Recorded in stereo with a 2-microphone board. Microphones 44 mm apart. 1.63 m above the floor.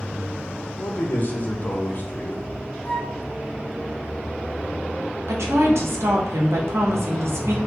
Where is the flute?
25° left (ahead or behind), 0.7 m.